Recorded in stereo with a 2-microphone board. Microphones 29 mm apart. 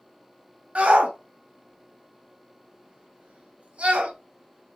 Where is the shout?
50° right (ahead or behind), 1.1 m.